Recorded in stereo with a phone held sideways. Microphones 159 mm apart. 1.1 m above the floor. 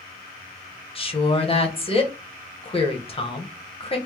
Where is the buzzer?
No buzzer in this recording.